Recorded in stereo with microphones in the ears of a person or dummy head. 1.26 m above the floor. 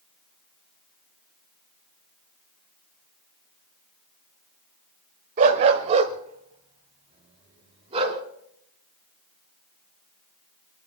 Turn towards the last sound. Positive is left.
turn(degrees=-30)  # may be behind; listen again after turning